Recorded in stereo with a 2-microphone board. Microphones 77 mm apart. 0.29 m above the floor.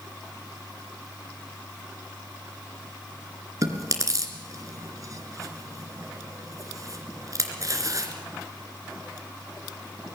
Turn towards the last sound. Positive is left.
turn(degrees=-45)  # may be behind; listen again after turning